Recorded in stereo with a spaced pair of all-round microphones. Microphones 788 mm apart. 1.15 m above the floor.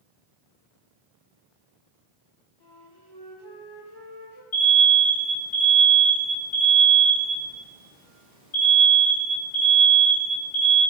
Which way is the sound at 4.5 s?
55° left (ahead or behind).